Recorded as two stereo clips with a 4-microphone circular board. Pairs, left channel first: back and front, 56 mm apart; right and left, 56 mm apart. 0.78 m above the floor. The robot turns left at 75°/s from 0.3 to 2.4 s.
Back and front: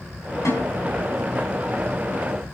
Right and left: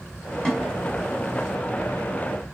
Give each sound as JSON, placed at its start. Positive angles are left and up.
{"t": 0.5, "sound": "a snare drum", "azimuth_deg": -165, "distance_m": 6.0}